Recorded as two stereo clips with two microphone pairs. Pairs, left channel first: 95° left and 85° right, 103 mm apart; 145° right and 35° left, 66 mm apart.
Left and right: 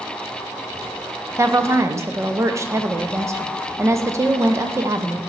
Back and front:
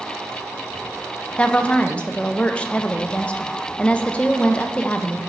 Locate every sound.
1.4 s a woman speaking: 100° right, 0.6 m